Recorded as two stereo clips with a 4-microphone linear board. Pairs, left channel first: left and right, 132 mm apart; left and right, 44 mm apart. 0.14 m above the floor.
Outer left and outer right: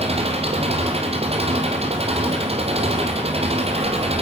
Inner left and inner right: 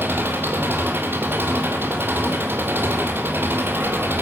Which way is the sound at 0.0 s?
50° right (ahead or behind).